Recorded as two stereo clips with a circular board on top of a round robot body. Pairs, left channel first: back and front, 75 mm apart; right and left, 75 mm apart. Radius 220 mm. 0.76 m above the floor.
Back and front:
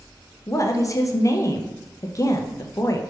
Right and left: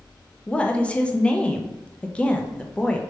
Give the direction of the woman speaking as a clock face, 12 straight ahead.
5 o'clock.